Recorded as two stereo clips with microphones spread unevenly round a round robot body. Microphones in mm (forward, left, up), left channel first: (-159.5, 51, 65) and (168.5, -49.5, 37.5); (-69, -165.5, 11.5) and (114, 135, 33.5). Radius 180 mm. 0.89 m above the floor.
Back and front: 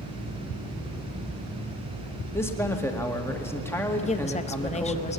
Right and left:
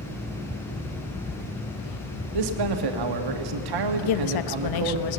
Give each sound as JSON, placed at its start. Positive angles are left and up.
{"t": 2.3, "sound": "a man speaking", "azimuth_deg": 80, "distance_m": 1.9}
{"t": 4.0, "sound": "a woman speaking", "azimuth_deg": -125, "distance_m": 1.0}